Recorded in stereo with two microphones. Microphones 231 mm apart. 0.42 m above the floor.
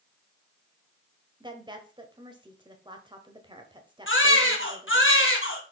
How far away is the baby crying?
About 2 m.